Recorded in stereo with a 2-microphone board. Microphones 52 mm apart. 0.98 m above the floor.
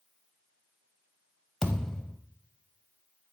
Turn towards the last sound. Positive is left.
turn(degrees=5)  # may be behind; listen again after turning